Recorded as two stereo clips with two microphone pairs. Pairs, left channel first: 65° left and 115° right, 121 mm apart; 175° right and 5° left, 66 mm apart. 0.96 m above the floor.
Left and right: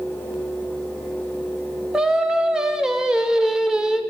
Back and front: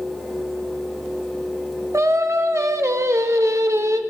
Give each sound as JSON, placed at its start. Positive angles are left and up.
{"t": 1.9, "sound": "singing", "azimuth_deg": -30, "distance_m": 0.5}